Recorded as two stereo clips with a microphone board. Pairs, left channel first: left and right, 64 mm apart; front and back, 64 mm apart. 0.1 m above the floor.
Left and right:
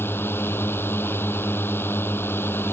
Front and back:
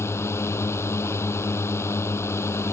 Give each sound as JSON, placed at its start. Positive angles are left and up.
{"t": 0.0, "sound": "a drone", "azimuth_deg": 40}